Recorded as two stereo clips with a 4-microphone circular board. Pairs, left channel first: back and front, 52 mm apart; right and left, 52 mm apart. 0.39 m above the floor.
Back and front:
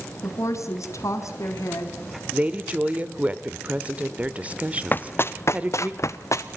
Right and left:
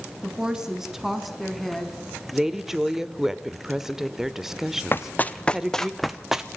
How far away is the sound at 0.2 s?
About 3.5 m.